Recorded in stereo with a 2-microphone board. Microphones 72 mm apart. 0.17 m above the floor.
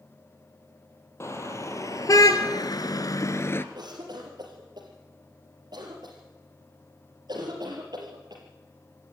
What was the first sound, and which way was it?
A car horn, 40° left (ahead or behind).